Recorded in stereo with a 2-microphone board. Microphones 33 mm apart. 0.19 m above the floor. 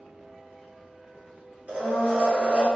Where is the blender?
50° right (ahead or behind), 1.4 m.